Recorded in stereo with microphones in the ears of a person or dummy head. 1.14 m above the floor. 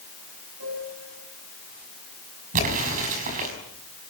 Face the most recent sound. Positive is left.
turn(degrees=-40)  # may be behind; listen again after turning